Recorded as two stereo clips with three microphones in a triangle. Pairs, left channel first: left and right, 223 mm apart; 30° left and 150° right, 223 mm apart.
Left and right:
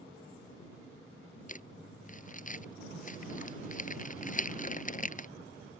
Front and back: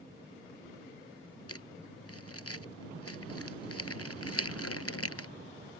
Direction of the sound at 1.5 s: 35° left.